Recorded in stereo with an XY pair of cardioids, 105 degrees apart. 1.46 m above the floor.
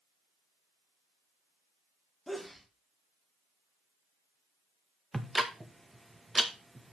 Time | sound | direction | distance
2.3 | a sneeze | 5° left | 1.0 m
5.1 | ticking | 10° right | 1.3 m